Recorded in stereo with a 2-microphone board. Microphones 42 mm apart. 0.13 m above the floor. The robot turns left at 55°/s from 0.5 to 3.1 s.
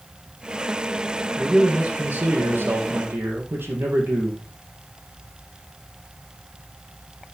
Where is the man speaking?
15° right, 4.5 m; by 4.4 s 115° right, 4.5 m.